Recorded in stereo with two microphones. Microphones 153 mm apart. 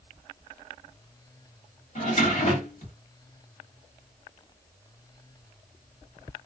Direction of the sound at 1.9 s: 55° left (ahead or behind).